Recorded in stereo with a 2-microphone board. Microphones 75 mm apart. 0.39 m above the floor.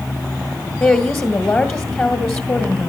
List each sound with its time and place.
0.8 s a woman speaking: 30° left (ahead or behind), 1.6 m